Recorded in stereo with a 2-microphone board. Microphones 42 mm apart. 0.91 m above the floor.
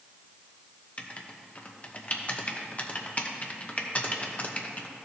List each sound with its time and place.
1.0 s writing: 35° left (ahead or behind), 0.8 m